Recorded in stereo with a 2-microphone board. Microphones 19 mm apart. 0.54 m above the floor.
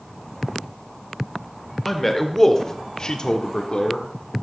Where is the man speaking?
10° left (ahead or behind), 1.5 m; by 4.4 s 50° left (ahead or behind), 1.3 m.